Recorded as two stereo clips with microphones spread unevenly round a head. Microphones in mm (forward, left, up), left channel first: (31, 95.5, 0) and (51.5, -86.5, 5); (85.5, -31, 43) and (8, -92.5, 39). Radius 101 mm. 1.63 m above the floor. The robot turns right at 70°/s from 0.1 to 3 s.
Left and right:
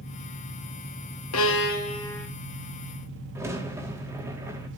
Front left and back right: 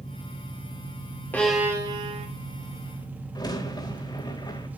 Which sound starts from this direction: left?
An engine running, at 0.0 s.